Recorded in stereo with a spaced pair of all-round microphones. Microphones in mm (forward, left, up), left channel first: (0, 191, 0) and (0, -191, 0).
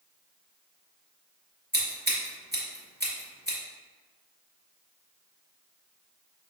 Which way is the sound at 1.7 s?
25° right (ahead or behind).